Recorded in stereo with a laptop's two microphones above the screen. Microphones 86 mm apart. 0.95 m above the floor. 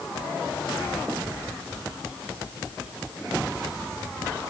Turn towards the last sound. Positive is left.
No sound to turn to.